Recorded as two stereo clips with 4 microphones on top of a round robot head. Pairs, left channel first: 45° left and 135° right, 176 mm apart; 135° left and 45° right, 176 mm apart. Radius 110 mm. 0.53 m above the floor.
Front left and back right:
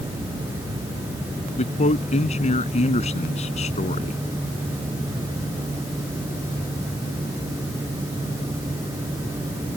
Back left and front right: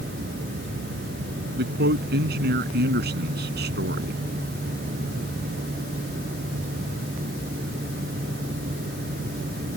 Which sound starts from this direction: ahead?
A man speaking, at 1.6 s.